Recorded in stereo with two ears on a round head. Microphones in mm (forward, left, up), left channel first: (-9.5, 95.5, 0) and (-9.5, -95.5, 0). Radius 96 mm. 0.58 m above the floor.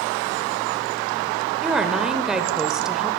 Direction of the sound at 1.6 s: 5° right (ahead or behind).